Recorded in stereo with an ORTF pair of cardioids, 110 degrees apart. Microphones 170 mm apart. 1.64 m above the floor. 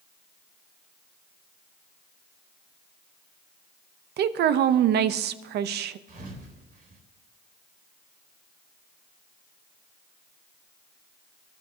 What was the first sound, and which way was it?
A woman speaking, 65° right.